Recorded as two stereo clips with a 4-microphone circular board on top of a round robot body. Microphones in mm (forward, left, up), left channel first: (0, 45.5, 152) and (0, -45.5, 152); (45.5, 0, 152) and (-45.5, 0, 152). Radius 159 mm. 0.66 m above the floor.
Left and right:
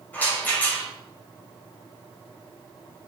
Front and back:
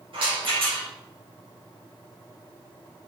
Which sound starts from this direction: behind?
A rattle, at 0.1 s.